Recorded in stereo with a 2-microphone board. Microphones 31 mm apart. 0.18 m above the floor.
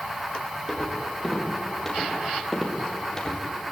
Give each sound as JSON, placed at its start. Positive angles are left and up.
{"t": 0.7, "sound": "footsteps", "side_deg": 5, "distance_m": 7.5}